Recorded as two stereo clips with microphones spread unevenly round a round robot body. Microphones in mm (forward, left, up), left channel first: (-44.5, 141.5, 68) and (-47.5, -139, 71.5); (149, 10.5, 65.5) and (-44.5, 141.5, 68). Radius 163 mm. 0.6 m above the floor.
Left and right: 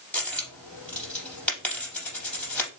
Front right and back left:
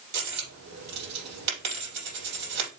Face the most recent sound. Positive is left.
turn(degrees=175)